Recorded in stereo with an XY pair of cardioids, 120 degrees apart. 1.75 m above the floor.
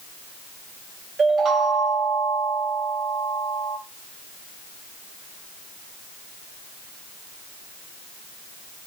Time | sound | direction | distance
1.2 | a chime | 45° right | 1.0 m